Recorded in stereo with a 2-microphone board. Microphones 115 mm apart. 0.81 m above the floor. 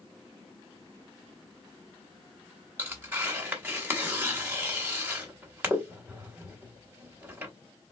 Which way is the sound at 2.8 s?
15° right (ahead or behind).